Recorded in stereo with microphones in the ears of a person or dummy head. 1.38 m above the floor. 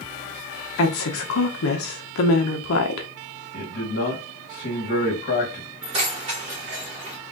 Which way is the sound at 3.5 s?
50° left (ahead or behind).